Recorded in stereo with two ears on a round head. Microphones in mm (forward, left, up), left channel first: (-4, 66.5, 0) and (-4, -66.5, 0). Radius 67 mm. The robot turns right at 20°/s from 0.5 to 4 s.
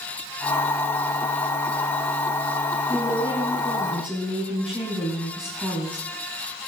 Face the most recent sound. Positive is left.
turn(degrees=-5)  # may be behind; listen again after turning